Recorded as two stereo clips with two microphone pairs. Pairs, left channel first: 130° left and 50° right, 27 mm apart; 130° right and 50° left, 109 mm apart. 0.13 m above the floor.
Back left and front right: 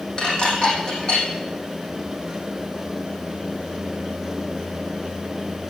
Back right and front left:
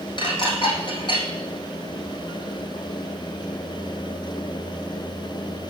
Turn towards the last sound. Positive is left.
turn(degrees=-170)